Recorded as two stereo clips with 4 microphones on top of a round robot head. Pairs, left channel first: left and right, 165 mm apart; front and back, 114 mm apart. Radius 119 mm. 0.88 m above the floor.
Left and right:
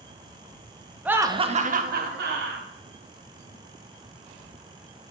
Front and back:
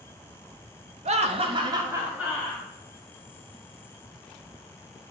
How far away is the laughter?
About 1.2 m.